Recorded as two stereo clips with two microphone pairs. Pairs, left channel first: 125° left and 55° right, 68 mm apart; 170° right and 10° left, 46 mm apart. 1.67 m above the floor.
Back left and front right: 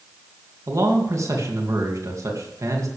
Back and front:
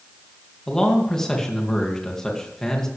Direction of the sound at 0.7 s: 90° right.